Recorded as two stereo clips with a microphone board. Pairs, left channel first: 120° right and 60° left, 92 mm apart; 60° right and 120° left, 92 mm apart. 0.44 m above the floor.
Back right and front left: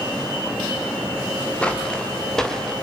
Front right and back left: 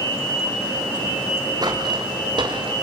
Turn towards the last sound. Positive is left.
turn(degrees=155)